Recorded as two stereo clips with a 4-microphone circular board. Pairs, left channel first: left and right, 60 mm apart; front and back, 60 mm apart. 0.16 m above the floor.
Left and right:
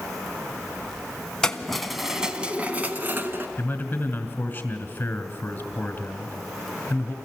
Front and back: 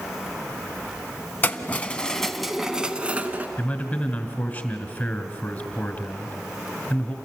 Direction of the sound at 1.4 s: 20° left.